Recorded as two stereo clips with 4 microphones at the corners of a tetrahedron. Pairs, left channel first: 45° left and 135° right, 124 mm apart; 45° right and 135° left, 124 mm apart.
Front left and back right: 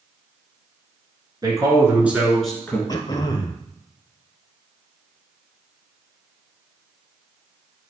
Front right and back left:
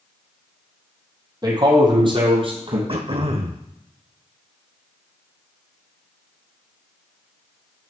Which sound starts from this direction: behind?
A man speaking, at 1.4 s.